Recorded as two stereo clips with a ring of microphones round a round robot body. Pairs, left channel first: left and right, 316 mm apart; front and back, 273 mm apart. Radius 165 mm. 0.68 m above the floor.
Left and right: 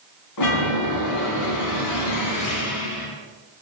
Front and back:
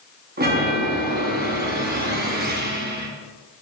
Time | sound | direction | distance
0.4 | a chime | 125° left | 1.8 m